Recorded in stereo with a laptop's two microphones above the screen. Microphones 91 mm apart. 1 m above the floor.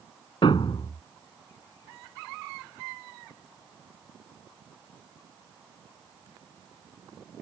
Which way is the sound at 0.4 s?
60° left (ahead or behind).